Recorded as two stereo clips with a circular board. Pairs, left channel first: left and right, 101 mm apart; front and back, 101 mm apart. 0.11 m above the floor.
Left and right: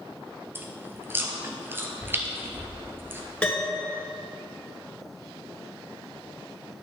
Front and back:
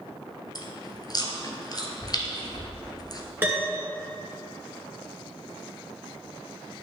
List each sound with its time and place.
0.6 s chewing: 30° right, 1.1 m
3.4 s a piano: 150° left, 1.7 m